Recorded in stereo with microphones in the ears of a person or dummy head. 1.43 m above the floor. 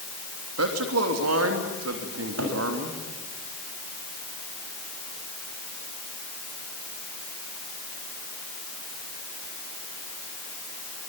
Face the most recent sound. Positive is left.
turn(degrees=-80)